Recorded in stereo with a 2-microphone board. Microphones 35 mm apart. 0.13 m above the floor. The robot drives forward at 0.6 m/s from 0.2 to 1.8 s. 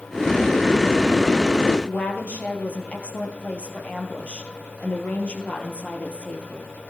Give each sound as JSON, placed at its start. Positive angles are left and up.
{"t": 1.9, "sound": "a woman speaking", "side_deg": 50, "distance_m": 3.0}